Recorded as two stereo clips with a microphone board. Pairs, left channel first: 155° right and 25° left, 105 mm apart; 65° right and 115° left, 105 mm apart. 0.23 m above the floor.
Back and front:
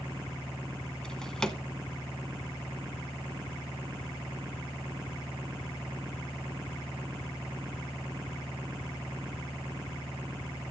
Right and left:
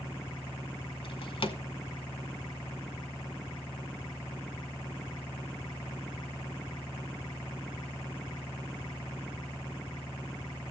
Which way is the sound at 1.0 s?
75° right.